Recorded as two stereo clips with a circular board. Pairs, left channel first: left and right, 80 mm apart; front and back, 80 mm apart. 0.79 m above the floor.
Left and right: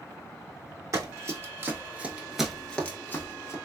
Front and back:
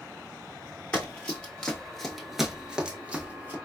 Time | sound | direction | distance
0.9 | running footsteps | 65° right | 1.1 m